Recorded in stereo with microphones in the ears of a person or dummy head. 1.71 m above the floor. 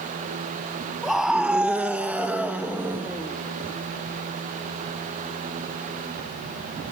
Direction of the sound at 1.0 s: 5° right (ahead or behind).